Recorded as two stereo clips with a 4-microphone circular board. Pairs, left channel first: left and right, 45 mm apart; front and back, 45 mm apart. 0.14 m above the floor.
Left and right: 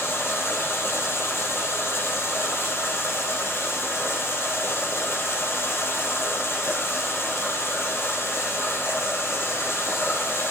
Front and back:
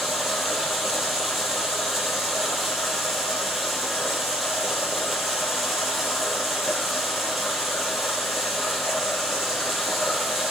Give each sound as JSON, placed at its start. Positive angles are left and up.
{"t": 0.0, "sound": "running water", "azimuth_deg": 90, "distance_m": 3.0}